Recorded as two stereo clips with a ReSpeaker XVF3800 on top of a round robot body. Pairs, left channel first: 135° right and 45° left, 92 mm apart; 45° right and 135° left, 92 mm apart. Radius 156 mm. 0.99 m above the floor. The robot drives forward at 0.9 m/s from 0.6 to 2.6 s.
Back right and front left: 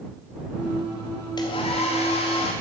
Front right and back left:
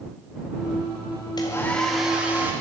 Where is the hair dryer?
90° right, 0.6 m; by 2.5 s 155° right, 1.2 m.